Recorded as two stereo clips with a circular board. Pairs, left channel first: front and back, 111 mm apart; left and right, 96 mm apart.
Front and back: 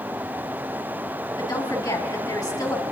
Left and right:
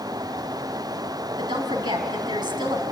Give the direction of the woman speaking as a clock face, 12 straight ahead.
2 o'clock.